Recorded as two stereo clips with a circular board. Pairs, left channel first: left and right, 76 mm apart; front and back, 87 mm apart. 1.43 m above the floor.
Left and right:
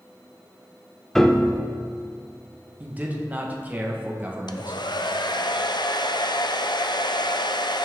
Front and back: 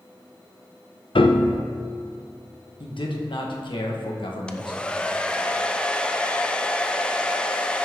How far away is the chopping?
No chopping in this recording.